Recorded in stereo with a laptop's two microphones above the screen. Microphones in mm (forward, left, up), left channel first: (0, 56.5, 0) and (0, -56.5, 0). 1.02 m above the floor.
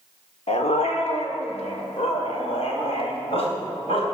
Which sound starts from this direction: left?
A dog barking, at 0.5 s.